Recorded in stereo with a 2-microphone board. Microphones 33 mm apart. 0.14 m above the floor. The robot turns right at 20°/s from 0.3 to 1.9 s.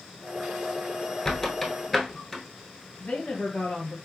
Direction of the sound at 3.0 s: 55° left (ahead or behind).